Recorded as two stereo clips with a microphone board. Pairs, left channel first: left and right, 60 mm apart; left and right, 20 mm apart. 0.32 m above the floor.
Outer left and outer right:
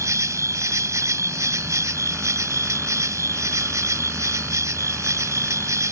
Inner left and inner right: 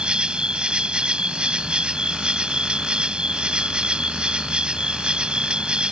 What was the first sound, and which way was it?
An insect, 60° right (ahead or behind).